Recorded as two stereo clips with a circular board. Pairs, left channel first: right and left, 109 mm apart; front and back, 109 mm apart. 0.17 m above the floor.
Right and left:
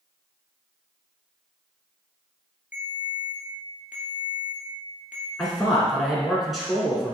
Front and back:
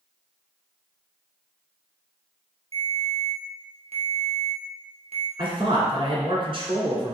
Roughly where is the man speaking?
Behind.